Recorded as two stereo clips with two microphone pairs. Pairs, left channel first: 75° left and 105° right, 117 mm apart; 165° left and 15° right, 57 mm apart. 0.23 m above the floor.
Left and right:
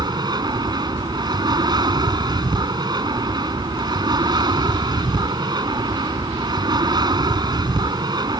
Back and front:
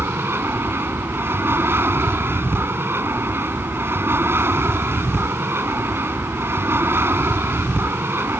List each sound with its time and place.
0.0 s an aircraft: 55° right